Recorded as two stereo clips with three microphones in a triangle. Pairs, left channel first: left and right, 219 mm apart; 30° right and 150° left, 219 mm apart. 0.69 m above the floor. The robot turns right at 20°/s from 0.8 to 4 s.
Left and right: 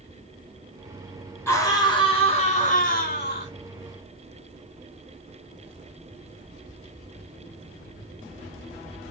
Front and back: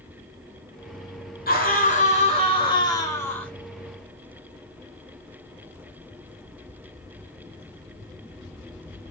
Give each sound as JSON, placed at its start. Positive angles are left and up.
{"t": 1.5, "sound": "a scream", "azimuth_deg": 10, "distance_m": 2.0}